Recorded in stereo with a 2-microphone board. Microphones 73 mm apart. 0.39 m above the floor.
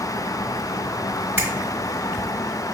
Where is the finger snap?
30° right (ahead or behind), 1.4 m.